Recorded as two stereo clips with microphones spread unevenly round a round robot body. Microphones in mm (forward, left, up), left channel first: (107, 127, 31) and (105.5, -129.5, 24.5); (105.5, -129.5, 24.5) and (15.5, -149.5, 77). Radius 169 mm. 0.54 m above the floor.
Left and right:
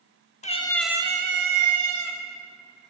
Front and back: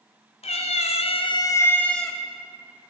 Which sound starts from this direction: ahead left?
A cat meowing, at 0.4 s.